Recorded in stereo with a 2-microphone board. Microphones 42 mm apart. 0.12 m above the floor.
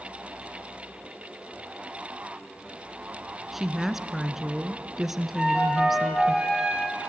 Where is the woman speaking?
5° right (ahead or behind), 1.1 m.